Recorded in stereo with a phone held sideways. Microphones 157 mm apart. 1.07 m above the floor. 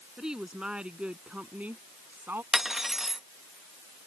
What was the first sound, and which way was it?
A woman speaking, 5° right (ahead or behind).